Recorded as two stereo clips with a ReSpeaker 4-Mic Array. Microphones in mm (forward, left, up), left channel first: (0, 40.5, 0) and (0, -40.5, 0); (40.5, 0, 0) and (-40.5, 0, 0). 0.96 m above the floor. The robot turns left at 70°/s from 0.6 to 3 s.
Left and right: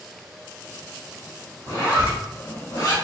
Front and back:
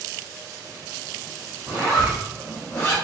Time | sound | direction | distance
1.7 | a zipper | 145° left | 2.5 m